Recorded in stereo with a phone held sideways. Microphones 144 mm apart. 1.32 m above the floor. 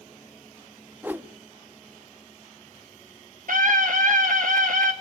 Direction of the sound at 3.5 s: 70° right (ahead or behind).